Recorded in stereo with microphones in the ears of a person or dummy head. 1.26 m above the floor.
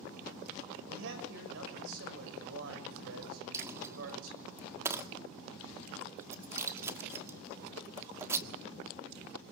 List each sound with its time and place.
0.9 s a man speaking: 75° right (ahead or behind), 6 m
3.5 s a dropped coin: 15° right (ahead or behind), 1.4 m